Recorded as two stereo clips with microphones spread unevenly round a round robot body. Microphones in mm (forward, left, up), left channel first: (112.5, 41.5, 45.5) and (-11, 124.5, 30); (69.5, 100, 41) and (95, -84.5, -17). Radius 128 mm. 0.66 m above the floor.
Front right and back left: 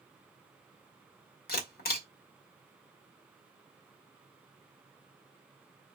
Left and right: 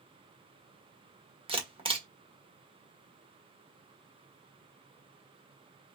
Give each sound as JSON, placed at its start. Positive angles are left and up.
{"t": 1.5, "sound": "a camera shutter", "azimuth_deg": -30, "distance_m": 1.6}